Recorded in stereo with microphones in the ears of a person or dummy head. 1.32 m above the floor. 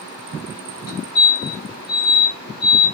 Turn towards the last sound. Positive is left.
turn(degrees=50)  # may be behind; listen again after turning